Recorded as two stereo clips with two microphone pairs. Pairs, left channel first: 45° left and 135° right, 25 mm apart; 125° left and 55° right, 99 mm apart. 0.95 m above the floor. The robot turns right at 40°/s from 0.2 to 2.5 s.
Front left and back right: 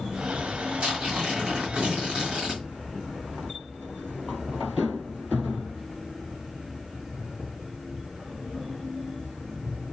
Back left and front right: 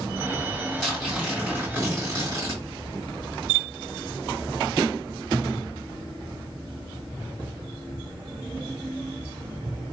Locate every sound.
0.8 s tearing paper: 155° right, 1.8 m; by 2.6 s 90° right, 1.8 m